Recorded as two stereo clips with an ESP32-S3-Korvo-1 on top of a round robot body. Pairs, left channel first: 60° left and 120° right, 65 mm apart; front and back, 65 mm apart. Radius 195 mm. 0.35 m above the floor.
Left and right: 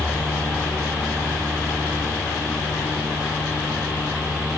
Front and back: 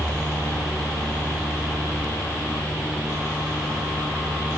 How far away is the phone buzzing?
No phone buzzing in this recording.